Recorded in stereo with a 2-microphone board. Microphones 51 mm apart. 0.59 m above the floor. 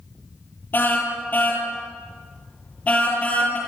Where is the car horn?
40° left (ahead or behind), 8.5 m; by 3.6 s 25° left (ahead or behind), 8.5 m.